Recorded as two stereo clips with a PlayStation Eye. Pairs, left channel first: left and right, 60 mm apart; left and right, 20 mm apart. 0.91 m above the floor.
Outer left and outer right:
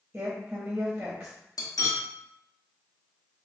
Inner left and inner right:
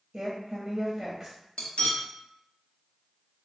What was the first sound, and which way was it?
A woman speaking, 20° right (ahead or behind).